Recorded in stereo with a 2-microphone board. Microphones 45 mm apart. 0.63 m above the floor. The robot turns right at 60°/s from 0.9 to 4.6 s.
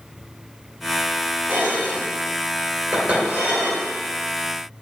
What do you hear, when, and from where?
1.5 s dishes clattering: 50° right (ahead or behind), 1.8 m; by 3.9 s 15° left (ahead or behind), 1.8 m